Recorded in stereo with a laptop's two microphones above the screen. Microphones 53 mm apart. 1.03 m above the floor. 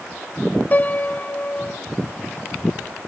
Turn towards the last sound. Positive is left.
turn(degrees=35)  # may be behind; listen again after turning